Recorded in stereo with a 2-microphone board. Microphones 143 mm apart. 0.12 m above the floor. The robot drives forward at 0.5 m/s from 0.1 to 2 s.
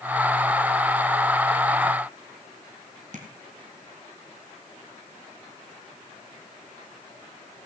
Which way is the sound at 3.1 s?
60° right (ahead or behind).